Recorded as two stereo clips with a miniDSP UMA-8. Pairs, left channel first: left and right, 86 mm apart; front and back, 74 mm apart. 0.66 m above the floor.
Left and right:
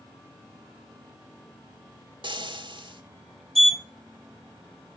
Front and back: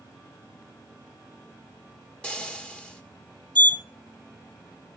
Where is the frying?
75° right, 1.4 m.